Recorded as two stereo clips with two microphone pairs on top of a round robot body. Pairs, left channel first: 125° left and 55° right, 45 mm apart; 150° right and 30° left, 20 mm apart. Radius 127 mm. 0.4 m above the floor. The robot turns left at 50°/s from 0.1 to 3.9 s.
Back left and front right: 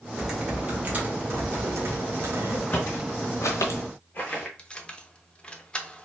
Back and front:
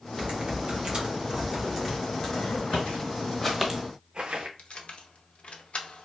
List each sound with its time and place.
0.1 s typing on a keyboard: 40° left, 1.4 m; by 2.6 s 85° right, 1.4 m
2.7 s footsteps: 175° right, 1.4 m; by 4.5 s 40° left, 0.6 m
4.6 s keys jangling: 165° right, 0.8 m